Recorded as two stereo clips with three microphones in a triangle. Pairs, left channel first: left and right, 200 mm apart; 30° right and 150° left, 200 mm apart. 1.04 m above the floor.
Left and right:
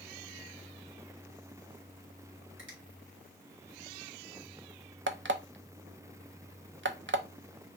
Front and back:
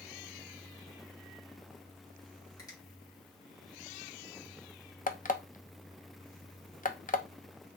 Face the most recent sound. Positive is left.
turn(degrees=-80)